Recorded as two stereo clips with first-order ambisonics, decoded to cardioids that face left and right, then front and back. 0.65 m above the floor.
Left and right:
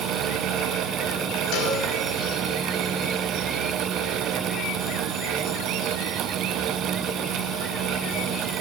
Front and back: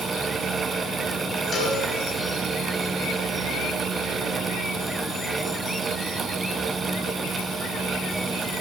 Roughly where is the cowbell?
Left.